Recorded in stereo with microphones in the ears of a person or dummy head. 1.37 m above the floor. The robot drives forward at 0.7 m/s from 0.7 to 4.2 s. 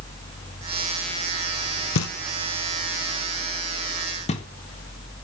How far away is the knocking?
About 1.0 m.